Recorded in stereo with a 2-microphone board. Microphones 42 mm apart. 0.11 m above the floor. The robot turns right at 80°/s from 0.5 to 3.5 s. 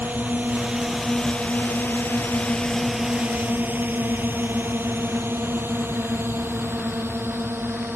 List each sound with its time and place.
0.0 s a drone: 50° right (ahead or behind); by 8.0 s 70° right (ahead or behind)